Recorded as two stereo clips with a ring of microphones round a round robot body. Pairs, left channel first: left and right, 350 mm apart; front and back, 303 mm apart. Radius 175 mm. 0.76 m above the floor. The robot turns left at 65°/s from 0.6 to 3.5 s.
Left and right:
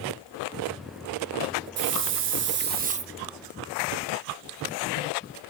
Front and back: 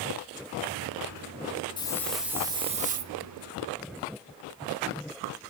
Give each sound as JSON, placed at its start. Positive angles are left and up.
{"t": 1.8, "sound": "a hiss", "azimuth_deg": -65, "distance_m": 1.1}